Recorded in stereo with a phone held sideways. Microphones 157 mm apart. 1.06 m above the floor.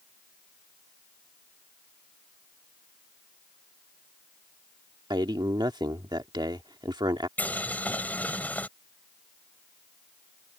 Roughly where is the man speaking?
Right.